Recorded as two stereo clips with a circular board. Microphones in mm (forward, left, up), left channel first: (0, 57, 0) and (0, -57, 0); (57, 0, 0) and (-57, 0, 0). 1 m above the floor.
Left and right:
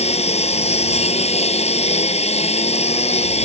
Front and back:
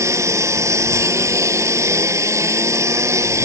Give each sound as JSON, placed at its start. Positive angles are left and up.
{"t": 0.0, "sound": "a lawn mower", "azimuth_deg": 115}